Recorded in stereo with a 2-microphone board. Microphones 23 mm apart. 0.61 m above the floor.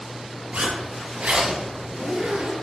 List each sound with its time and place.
0.5 s a zipper: 80° right, 3.5 m